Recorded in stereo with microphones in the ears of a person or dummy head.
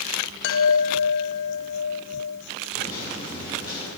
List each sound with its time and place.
0.4 s a chime: 65° left (ahead or behind), 0.6 m
2.8 s a microwave: 30° left (ahead or behind), 4 m